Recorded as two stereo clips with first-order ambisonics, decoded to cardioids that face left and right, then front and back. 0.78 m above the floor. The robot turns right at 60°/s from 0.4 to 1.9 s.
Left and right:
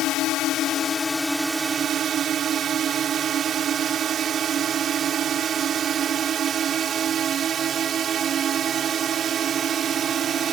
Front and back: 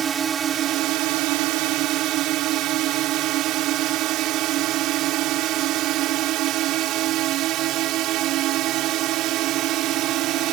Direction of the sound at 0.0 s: 120° left.